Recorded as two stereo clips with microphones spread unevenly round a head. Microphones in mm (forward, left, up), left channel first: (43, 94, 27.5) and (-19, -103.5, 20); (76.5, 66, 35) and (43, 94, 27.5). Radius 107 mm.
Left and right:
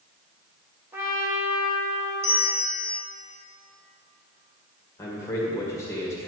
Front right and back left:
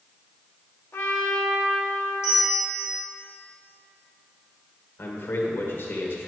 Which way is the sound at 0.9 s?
30° right.